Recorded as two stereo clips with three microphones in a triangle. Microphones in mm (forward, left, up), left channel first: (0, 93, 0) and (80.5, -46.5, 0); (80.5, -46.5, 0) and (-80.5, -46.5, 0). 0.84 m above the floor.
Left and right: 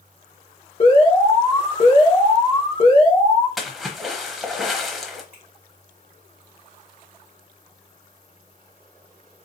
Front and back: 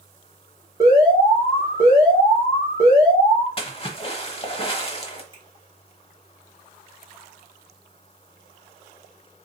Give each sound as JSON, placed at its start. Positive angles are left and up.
{"t": 0.8, "sound": "an alarm", "azimuth_deg": 130, "distance_m": 1.8}
{"t": 3.6, "sound": "a splash", "azimuth_deg": 30, "distance_m": 0.8}
{"t": 5.3, "sound": "a finger snap", "azimuth_deg": 120, "distance_m": 2.0}